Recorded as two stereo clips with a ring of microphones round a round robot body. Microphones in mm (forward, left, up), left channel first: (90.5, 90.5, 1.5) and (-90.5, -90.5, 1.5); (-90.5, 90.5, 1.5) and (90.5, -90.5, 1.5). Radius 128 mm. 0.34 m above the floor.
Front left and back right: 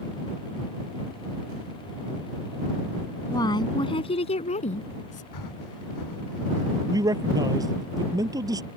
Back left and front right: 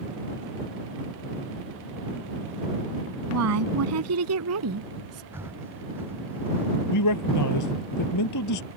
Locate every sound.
3.3 s a woman speaking: 30° right; by 5.2 s 15° right
5.3 s breathing: 35° left
6.9 s a man speaking: 150° left